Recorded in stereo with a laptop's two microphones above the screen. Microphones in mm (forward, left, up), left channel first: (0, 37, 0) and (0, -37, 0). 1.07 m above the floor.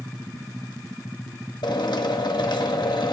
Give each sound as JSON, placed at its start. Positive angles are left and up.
{"t": 1.6, "sound": "a drill", "side_deg": 70, "distance_m": 1.2}